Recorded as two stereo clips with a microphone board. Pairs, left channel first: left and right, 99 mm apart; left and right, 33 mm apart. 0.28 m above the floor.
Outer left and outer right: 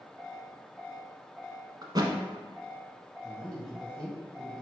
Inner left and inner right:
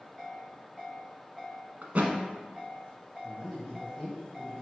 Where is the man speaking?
Centre (ahead or behind), 1.8 m.